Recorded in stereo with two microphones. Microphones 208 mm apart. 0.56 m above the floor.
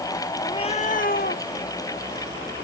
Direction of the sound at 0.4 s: 20° left (ahead or behind).